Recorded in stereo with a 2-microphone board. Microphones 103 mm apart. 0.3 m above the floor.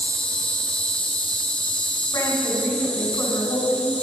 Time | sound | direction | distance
0.0 | an insect | 10° left (ahead or behind) | 1.3 m
2.1 | a woman speaking | 35° left (ahead or behind) | 2 m